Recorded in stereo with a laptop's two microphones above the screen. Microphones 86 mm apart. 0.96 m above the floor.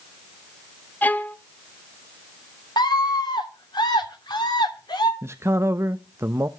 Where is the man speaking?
35° right (ahead or behind), 0.6 m.